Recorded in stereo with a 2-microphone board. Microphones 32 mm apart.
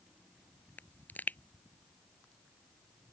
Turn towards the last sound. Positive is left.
turn(degrees=65)  # may be behind; listen again after turning